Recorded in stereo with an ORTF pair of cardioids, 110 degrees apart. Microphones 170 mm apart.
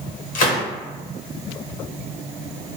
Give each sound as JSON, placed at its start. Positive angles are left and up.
{"t": 0.3, "sound": "a gunshot", "azimuth_deg": 50, "distance_m": 0.9}